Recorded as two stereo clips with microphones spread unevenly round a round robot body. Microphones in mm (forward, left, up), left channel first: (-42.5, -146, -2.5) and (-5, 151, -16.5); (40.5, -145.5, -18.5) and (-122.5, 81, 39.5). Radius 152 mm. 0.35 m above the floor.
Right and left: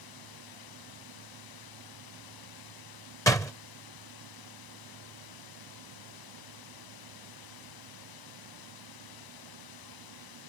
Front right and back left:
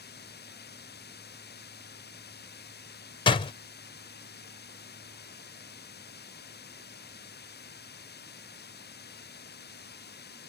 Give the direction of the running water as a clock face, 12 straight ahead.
4 o'clock.